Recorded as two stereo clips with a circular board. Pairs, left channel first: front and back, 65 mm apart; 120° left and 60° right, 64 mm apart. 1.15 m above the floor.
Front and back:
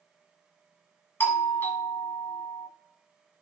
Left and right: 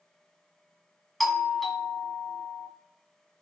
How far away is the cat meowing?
I don't hear a cat meowing.